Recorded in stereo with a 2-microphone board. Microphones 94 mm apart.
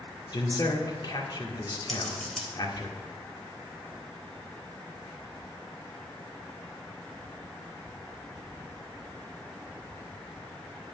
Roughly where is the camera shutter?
No camera shutter in this recording.